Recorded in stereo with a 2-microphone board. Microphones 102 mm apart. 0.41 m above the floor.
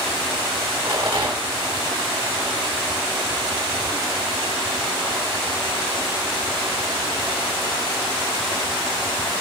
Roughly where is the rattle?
Right.